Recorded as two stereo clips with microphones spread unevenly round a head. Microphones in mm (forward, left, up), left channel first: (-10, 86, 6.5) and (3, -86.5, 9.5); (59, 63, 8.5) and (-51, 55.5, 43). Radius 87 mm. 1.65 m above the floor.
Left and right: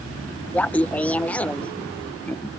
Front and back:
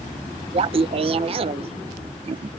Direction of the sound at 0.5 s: 175° left.